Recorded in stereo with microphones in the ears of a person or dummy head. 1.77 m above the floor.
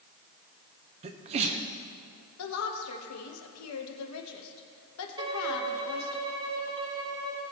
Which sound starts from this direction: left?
A woman speaking, at 2.4 s.